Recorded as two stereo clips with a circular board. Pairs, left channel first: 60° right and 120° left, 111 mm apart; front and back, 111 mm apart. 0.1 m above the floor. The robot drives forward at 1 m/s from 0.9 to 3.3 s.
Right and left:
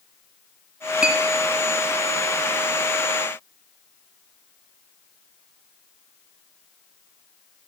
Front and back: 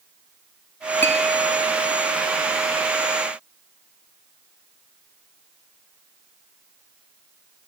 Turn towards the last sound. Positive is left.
turn(degrees=175)